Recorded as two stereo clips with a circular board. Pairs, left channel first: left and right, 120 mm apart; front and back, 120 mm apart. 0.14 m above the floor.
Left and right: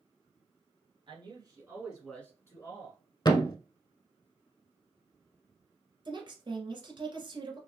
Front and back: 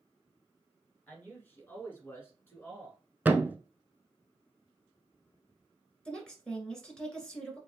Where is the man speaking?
70° right, 2 m; by 3.0 s 65° left, 2 m.